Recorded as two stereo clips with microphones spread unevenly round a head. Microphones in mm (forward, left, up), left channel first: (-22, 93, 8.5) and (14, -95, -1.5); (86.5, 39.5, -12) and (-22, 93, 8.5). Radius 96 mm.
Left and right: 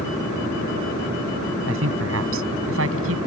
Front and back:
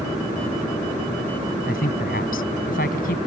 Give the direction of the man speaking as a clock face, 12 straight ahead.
2 o'clock.